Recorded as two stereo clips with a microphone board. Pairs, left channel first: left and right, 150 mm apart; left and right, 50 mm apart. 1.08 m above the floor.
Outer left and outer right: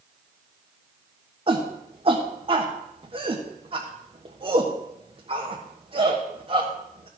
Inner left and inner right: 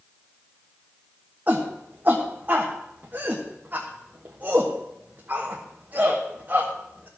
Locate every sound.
1.5 s a shout: 35° right (ahead or behind), 1.3 m